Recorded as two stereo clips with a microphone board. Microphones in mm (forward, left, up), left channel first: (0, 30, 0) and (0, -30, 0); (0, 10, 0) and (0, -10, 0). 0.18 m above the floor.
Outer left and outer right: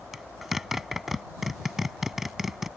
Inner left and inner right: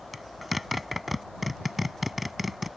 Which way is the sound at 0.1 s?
5° right (ahead or behind).